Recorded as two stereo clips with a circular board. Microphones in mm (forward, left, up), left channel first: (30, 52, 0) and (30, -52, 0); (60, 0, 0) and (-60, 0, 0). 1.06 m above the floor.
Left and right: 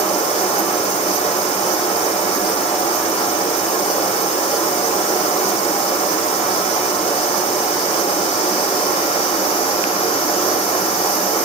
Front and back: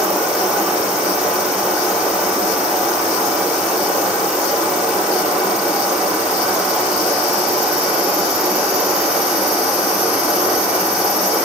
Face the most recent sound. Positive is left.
turn(degrees=95)